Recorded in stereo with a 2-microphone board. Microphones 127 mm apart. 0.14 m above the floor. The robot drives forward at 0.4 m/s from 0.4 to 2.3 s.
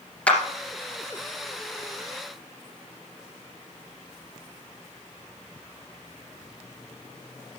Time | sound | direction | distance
0.3 | a clap | 10° left (ahead or behind) | 2.5 m